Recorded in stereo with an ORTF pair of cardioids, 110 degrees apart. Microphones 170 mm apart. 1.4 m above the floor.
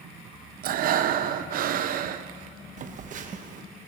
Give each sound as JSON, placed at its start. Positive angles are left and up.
{"t": 0.6, "sound": "breathing", "azimuth_deg": -60, "distance_m": 0.7}
{"t": 2.8, "sound": "a phone buzzing", "azimuth_deg": -50, "distance_m": 1.1}